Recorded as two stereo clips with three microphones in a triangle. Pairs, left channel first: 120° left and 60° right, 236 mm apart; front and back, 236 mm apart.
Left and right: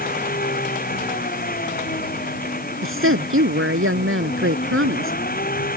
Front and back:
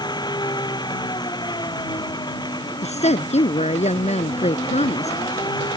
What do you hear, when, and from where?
0.0 s an engine running: 70° left
2.8 s a woman speaking: 60° right